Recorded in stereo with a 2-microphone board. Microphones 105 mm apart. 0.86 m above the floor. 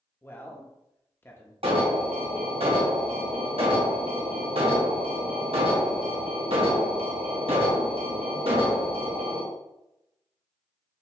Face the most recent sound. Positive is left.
turn(degrees=-60)  # may be behind; listen again after turning